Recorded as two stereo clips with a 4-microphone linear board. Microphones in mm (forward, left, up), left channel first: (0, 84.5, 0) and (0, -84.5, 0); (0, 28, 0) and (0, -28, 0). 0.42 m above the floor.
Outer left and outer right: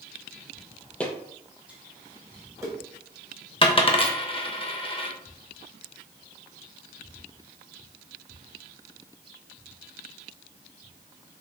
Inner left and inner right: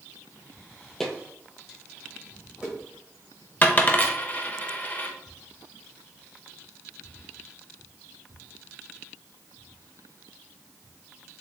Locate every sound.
1.0 s footsteps: 10° left (ahead or behind), 0.6 m; by 2.7 s 20° right (ahead or behind), 1.4 m
3.6 s a dropped coin: 30° left (ahead or behind), 0.5 m